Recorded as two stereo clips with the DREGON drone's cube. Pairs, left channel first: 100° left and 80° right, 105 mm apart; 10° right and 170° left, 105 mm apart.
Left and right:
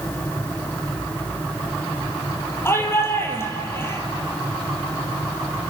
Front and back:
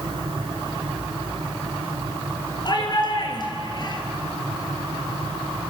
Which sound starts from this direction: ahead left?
A shout, at 2.6 s.